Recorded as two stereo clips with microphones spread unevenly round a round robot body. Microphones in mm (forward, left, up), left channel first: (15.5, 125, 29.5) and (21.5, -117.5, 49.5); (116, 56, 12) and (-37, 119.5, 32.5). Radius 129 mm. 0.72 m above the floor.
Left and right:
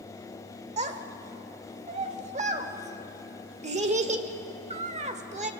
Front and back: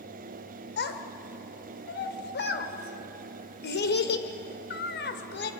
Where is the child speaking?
25° right, 2.0 m.